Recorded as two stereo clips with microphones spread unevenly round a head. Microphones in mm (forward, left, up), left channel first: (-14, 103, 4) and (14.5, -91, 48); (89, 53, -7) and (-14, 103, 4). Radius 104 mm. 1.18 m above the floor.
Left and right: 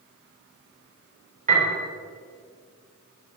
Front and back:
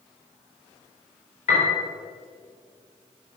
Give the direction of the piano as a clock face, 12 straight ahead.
1 o'clock.